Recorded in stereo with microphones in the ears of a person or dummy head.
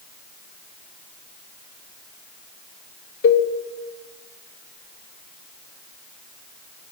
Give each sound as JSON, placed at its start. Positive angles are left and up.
{"t": 3.2, "sound": "a cowbell", "side_deg": 60, "distance_m": 0.8}